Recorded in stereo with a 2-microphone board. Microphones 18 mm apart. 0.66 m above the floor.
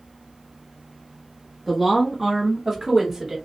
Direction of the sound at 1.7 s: Centre (ahead or behind).